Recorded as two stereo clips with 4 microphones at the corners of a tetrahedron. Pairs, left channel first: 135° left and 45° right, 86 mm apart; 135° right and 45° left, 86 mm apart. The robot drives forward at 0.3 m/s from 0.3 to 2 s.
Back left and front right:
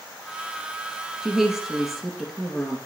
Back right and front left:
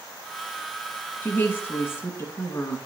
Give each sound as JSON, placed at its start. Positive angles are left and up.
{"t": 1.2, "sound": "a woman speaking", "azimuth_deg": -120, "distance_m": 1.5}